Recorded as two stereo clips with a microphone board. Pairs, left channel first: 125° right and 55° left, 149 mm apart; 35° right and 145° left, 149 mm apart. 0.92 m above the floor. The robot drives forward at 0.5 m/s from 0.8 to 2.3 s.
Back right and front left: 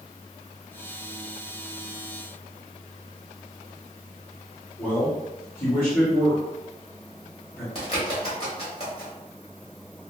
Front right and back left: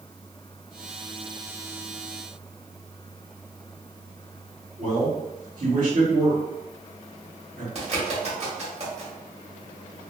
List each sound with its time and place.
4.8 s a man speaking: 160° left, 1.6 m
7.8 s a bird: 170° right, 1.3 m